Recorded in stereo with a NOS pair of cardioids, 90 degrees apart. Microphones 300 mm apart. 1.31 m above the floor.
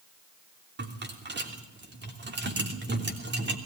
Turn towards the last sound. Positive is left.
turn(degrees=-35)